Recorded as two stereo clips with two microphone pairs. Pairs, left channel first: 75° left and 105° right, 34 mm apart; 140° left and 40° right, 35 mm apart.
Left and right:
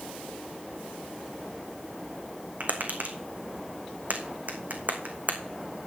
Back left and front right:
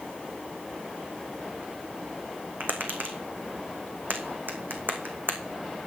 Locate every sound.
2.6 s tapping: 65° right, 1.9 m